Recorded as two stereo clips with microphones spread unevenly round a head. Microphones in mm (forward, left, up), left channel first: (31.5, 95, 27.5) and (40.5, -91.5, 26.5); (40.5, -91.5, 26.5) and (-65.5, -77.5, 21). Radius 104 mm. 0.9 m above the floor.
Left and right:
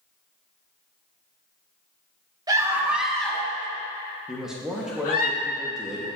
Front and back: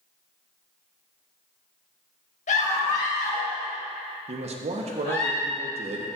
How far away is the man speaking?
About 1.0 m.